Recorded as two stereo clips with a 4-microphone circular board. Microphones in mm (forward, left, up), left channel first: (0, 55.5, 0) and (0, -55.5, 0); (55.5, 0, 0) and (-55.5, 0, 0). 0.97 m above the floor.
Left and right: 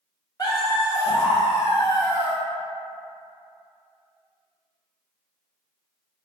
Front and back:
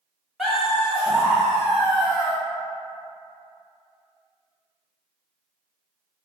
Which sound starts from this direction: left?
Laughter, at 0.4 s.